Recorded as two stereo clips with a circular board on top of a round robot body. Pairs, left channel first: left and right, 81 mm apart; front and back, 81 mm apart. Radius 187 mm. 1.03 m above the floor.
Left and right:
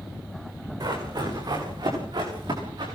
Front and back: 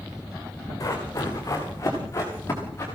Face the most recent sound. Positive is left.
turn(degrees=-60)